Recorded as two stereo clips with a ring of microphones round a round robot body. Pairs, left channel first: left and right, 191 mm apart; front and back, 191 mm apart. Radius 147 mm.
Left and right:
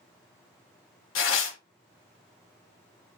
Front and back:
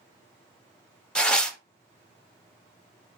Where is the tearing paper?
85° left, 0.5 m.